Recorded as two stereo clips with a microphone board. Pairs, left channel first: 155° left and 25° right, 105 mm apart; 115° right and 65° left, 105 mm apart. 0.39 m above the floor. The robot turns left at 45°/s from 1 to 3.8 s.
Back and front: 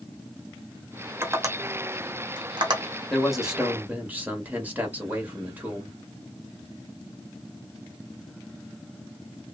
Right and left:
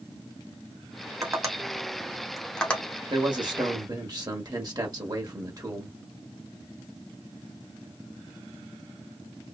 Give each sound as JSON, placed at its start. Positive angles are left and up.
{"t": 1.2, "sound": "tapping", "azimuth_deg": 30, "distance_m": 0.9}
{"t": 3.1, "sound": "a man speaking", "azimuth_deg": 75, "distance_m": 1.1}